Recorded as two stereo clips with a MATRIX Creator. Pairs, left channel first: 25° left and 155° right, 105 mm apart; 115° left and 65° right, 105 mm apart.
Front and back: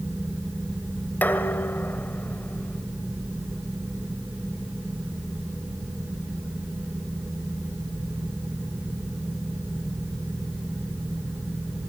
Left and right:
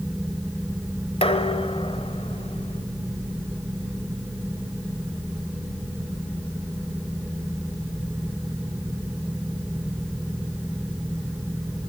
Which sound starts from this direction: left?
Dishes clattering, at 1.2 s.